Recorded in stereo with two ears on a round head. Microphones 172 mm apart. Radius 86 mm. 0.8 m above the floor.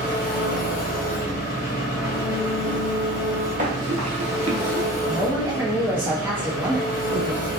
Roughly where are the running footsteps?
Right.